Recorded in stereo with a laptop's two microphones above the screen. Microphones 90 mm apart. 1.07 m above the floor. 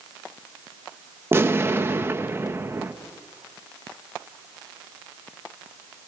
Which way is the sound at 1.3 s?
30° right (ahead or behind).